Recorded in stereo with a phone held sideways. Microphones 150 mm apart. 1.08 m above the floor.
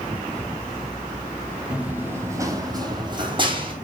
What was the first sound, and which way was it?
Running footsteps, 5° right (ahead or behind).